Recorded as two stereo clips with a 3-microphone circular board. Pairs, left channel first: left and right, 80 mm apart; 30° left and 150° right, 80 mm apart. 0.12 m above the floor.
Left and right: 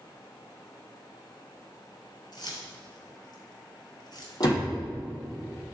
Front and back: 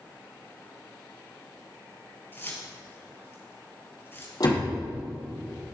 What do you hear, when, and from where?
2.3 s keys jangling: 85° left, 1.7 m
4.4 s a door slam: 60° left, 3 m